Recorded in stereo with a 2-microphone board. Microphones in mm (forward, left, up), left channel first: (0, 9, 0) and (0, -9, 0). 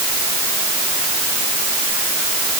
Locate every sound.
Only background noise.